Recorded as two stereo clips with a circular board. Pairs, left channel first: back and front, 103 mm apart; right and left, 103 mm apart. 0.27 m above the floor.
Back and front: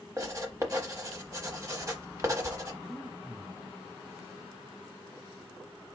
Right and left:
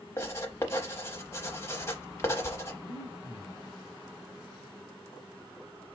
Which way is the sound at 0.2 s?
45° right.